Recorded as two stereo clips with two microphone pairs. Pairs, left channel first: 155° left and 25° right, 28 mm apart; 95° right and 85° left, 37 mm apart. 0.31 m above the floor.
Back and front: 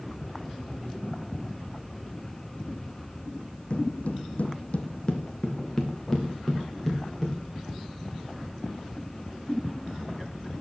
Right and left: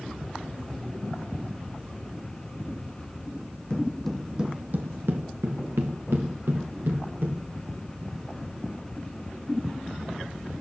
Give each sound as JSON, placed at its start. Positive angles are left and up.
{"t": 3.7, "sound": "footsteps", "azimuth_deg": -160, "distance_m": 1.0}